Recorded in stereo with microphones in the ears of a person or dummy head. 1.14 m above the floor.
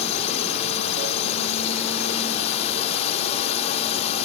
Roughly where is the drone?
Left.